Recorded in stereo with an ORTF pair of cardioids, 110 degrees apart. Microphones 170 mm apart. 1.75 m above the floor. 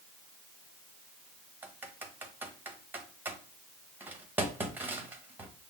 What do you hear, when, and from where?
1.6 s typing on a keyboard: 10° right, 1.0 m